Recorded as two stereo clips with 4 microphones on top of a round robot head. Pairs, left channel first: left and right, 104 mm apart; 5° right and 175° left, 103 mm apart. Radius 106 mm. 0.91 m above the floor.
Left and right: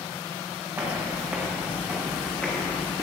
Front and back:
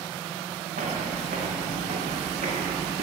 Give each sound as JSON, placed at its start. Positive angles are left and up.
{"t": 0.8, "sound": "footsteps", "azimuth_deg": -160, "distance_m": 5.0}